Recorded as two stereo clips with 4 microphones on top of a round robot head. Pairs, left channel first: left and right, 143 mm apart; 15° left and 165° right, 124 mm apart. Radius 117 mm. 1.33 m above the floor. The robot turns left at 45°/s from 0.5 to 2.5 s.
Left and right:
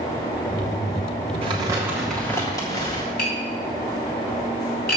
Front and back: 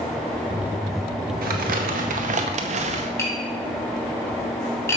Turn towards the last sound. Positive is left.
turn(degrees=80)